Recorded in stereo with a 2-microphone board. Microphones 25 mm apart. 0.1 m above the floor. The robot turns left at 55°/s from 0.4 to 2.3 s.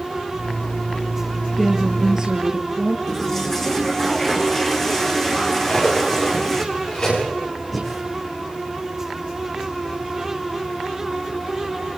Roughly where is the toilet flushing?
Centre.